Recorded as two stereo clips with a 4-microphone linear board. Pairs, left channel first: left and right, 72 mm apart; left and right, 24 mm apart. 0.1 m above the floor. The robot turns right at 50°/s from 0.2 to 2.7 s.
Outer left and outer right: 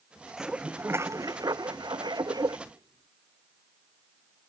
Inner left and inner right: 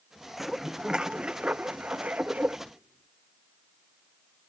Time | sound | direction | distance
0.4 | dishes clattering | 175° right | ?
2.7 | whispering | 60° right (ahead or behind) | ?